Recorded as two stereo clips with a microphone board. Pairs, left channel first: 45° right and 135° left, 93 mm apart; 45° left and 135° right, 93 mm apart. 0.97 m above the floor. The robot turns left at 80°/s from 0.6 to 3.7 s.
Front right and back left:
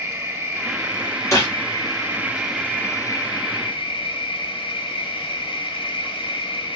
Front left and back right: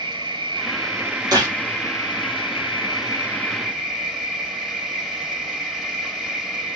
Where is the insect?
160° right, 1.7 m; by 6.8 s 50° right, 1.7 m.